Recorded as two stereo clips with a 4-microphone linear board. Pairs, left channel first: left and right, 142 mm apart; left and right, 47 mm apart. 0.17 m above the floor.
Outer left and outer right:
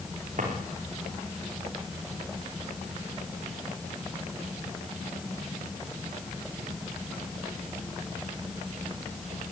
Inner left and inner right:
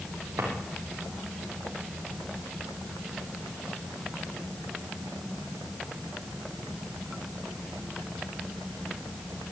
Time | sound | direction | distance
0.4 | a drawer | 65° right (ahead or behind) | 4.5 m